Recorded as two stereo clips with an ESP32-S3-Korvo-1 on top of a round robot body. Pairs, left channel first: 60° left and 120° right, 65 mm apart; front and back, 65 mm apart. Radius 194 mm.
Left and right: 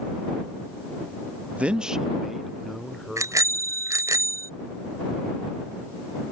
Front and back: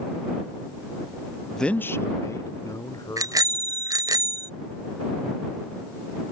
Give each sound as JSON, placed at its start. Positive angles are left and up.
{"t": 1.6, "sound": "a man speaking", "azimuth_deg": -80}
{"t": 3.2, "sound": "a bicycle bell", "azimuth_deg": -155}